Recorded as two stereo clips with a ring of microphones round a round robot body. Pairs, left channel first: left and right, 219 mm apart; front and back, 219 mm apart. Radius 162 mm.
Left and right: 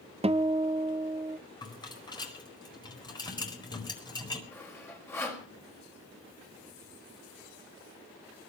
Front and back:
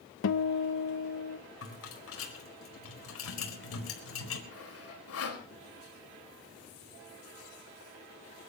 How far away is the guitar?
About 0.8 m.